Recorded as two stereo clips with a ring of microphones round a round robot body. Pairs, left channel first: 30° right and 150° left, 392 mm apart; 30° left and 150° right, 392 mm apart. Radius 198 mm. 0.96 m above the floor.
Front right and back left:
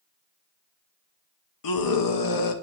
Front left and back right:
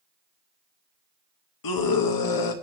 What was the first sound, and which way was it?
A scream, straight ahead.